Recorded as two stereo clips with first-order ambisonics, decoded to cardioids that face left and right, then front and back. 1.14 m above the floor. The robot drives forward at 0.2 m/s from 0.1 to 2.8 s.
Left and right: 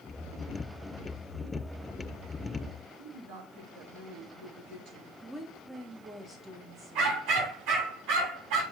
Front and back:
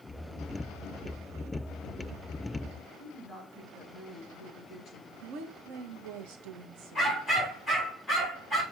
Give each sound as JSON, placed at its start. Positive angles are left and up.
{"t": 3.0, "sound": "a woman speaking", "azimuth_deg": -75, "distance_m": 4.5}
{"t": 5.2, "sound": "a woman speaking", "azimuth_deg": -165, "distance_m": 1.6}
{"t": 7.0, "sound": "a dog barking", "azimuth_deg": -90, "distance_m": 4.5}